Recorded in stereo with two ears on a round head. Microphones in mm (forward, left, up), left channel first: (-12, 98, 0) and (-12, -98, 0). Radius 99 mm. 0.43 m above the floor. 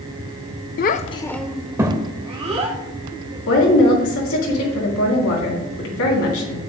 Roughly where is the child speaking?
Left.